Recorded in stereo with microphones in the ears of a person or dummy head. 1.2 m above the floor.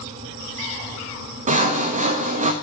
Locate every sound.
1.5 s sawing: 40° right (ahead or behind), 1.1 m